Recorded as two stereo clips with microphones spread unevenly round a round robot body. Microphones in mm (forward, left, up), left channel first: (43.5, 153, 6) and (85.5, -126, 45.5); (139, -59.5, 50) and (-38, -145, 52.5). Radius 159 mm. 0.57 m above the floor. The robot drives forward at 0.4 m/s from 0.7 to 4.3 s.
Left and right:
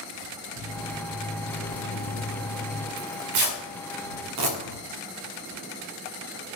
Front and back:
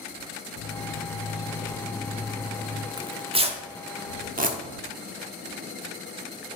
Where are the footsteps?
30° left, 1.9 m; by 2.9 s straight behind, 1.2 m.